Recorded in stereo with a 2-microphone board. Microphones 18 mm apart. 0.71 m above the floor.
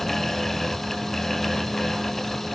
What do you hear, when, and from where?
Only background noise.